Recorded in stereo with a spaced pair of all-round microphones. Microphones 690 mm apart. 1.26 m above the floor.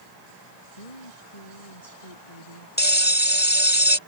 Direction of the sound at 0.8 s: 60° left (ahead or behind).